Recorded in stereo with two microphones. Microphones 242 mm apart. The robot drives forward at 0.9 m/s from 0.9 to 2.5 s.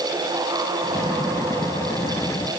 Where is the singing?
No singing in this recording.